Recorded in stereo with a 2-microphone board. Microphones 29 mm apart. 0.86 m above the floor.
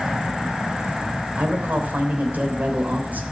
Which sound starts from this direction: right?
A man speaking, at 1.4 s.